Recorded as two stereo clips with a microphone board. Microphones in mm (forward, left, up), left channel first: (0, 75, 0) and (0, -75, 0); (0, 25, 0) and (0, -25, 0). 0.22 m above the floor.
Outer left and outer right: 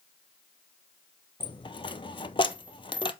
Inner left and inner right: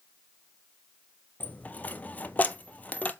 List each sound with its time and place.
1.4 s a dropped coin: 35° left (ahead or behind), 0.6 m